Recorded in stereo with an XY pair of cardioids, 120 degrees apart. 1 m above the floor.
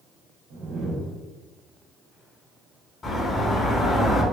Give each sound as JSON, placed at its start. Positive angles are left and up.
{"t": 0.5, "sound": "a whoosh", "azimuth_deg": -60, "distance_m": 0.8}
{"t": 3.0, "sound": "a bird", "azimuth_deg": 35, "distance_m": 1.1}